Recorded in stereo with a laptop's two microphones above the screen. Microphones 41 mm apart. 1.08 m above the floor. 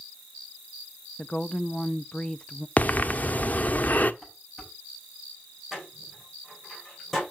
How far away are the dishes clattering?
About 5.5 m.